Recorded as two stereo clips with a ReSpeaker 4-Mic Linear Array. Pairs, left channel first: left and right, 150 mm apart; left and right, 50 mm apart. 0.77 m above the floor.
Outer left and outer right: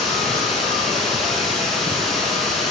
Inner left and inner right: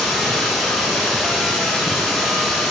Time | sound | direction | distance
0.0 | running water | centre (ahead or behind) | 1.0 m